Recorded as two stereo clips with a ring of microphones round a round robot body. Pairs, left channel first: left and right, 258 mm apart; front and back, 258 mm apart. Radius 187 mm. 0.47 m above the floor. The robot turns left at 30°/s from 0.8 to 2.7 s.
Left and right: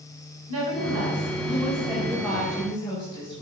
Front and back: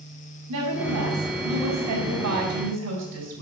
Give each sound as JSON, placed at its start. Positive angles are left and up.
{"t": 0.5, "sound": "a woman speaking", "azimuth_deg": -135, "distance_m": 4.5}